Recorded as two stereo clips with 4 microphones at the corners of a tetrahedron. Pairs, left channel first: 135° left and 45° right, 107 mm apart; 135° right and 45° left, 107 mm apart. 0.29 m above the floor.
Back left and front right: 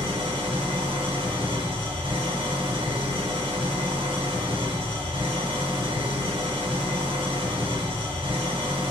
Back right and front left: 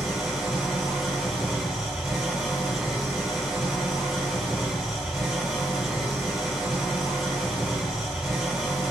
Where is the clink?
No clink in this recording.